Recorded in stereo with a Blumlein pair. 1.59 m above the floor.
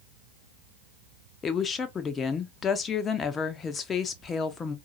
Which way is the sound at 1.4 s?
20° left.